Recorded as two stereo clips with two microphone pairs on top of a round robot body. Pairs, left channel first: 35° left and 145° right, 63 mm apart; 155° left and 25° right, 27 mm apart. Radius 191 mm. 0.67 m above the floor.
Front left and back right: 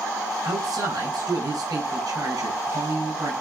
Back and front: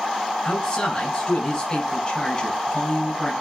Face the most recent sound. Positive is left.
turn(degrees=-150)